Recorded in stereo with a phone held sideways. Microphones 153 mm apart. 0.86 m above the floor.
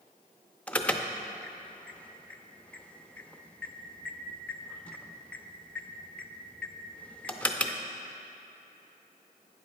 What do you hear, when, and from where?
0.7 s an alarm: 10° left (ahead or behind), 0.6 m